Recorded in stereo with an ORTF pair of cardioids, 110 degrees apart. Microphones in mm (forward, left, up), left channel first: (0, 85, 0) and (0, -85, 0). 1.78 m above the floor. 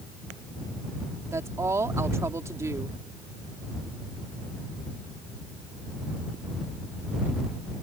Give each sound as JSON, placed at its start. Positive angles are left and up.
{"t": 1.3, "sound": "a woman speaking", "azimuth_deg": -15}